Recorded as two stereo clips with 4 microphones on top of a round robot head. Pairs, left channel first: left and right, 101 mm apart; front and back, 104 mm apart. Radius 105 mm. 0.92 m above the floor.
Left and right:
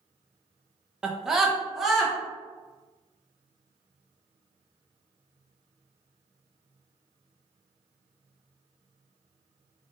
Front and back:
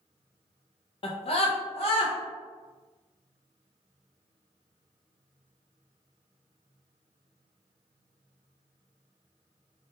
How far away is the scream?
About 0.5 m.